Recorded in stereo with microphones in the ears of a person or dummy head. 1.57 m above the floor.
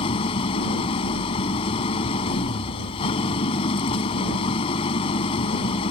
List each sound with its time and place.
0.0 s an engine running: 30° left (ahead or behind)